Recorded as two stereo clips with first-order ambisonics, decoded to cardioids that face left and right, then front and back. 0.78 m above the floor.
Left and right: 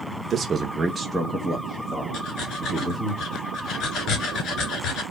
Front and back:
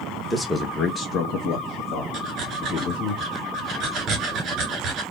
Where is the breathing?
130° left, 1.9 m.